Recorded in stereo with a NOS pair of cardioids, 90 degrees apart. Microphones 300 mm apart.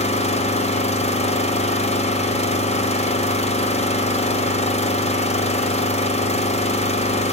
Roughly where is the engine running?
Ahead.